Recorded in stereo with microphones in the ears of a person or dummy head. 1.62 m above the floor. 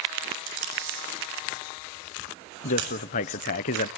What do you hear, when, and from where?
0.5 s tape being pulled: 70° right (ahead or behind), 7.5 m
2.6 s a man speaking: 40° left (ahead or behind), 0.6 m